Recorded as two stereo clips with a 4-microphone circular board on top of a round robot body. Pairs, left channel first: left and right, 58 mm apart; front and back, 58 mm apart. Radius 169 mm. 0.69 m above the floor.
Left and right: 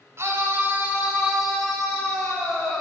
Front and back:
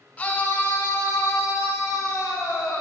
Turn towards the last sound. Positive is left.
turn(degrees=50)